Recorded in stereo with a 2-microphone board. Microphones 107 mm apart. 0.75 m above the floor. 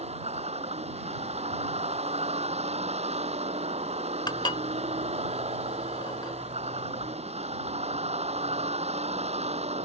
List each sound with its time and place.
0.0 s a vehicle: 85° right
4.3 s dishes clattering: 45° left (ahead or behind)